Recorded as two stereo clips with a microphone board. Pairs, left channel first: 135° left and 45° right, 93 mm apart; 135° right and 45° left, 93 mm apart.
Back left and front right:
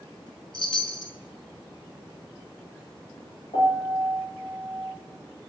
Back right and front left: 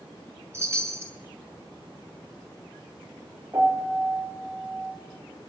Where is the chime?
105° left, 2.5 m.